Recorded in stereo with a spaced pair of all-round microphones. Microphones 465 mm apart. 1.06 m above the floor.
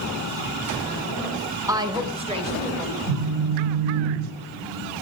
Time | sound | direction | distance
1.7 | a woman speaking | 5° right (ahead or behind) | 1.0 m
3.1 | a phone buzzing | 65° right (ahead or behind) | 3.5 m